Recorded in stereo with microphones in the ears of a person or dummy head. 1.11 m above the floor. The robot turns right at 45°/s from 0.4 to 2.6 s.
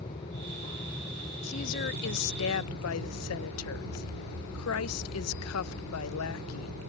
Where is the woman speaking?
35° left; by 6.8 s 90° left.